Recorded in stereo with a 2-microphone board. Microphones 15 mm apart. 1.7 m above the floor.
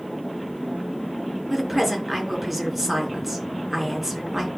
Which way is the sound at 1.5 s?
5° right (ahead or behind).